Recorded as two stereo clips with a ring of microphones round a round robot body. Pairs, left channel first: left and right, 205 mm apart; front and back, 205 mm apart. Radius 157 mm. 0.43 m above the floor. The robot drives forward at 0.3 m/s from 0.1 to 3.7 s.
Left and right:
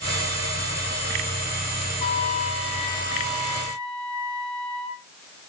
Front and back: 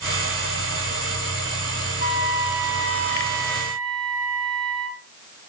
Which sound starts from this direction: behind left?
A trumpet, at 2.0 s.